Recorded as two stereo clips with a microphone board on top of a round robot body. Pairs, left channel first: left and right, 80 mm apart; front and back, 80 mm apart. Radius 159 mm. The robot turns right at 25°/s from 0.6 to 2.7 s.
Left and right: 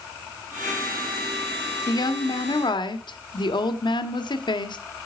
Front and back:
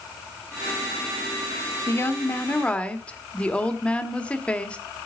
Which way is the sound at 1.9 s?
55° left.